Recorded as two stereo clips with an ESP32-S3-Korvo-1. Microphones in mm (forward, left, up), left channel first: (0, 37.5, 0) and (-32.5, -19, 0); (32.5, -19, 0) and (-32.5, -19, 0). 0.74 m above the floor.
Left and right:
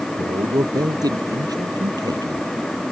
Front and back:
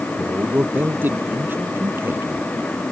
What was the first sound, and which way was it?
A man speaking, 115° right.